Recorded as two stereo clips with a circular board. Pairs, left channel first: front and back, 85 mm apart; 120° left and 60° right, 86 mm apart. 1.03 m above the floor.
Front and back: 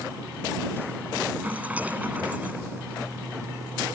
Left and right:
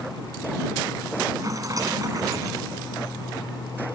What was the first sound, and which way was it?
A rattle, 110° right.